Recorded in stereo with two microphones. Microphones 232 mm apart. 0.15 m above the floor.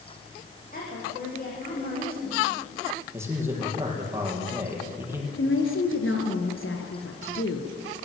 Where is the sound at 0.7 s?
40° left (ahead or behind), 9.5 m.